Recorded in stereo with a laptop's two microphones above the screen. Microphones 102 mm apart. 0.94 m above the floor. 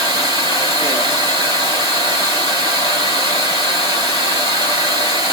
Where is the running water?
40° right (ahead or behind), 1.6 m.